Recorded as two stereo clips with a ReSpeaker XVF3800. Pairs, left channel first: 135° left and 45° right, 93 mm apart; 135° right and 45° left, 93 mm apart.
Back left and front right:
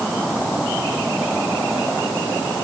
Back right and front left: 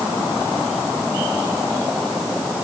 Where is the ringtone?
No ringtone in this recording.